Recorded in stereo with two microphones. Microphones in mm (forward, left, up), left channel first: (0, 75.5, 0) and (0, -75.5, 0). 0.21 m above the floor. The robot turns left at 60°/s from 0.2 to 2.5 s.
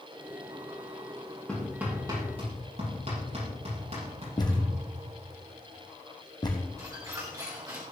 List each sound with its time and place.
1.5 s hammering: 5° left (ahead or behind), 6.5 m; by 4.7 s 50° right (ahead or behind), 6.5 m
4.4 s a thud: 30° left (ahead or behind), 2.5 m
6.8 s a squeak: 25° right (ahead or behind), 3 m